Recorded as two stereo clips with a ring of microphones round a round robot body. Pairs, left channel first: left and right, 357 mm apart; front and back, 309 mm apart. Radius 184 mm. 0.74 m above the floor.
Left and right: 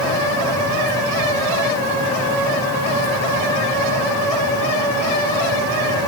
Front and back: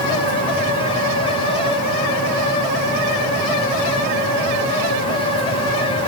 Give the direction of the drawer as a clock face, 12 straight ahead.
I don't hear a drawer.